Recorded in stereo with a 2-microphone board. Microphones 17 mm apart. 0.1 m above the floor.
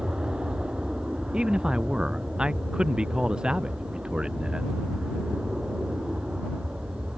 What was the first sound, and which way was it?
An aircraft, 65° right (ahead or behind).